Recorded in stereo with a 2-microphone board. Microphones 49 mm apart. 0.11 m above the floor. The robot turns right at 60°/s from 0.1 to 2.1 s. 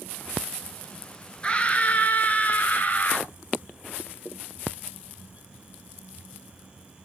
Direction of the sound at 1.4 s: 45° left.